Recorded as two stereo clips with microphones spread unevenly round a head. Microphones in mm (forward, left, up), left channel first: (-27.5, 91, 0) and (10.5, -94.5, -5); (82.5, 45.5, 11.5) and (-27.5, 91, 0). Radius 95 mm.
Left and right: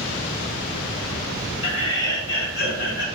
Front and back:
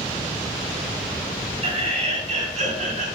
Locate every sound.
1.6 s laughter: 125° left, 3.5 m; by 3.1 s 145° left, 4.5 m